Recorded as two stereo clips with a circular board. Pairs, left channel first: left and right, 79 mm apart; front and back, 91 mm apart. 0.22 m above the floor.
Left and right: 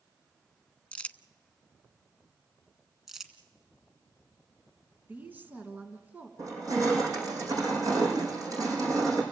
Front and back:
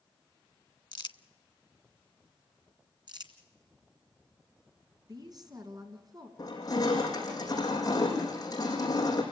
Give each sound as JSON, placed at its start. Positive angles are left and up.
{"t": 0.9, "sound": "crumpling", "azimuth_deg": 20, "distance_m": 0.5}
{"t": 3.1, "sound": "crumpling", "azimuth_deg": -175, "distance_m": 1.8}
{"t": 5.1, "sound": "a woman speaking", "azimuth_deg": -150, "distance_m": 2.5}
{"t": 6.4, "sound": "crushing", "azimuth_deg": -45, "distance_m": 5.5}